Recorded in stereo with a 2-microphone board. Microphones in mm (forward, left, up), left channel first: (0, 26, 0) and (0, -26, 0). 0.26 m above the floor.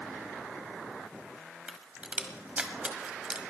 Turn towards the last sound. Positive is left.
turn(degrees=-25)  # may be behind; listen again after turning